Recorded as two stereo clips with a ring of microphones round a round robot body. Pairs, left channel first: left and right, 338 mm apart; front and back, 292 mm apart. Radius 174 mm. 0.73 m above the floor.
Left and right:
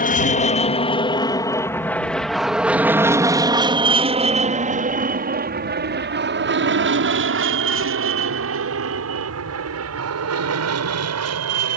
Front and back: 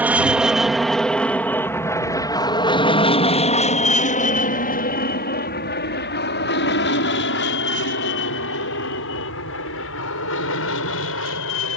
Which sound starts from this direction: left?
An aircraft, at 0.0 s.